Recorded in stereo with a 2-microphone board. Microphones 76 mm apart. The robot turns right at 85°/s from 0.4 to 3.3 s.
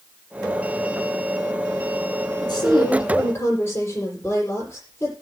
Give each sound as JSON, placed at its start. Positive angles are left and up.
{"t": 2.4, "sound": "a woman speaking", "azimuth_deg": 65, "distance_m": 7.5}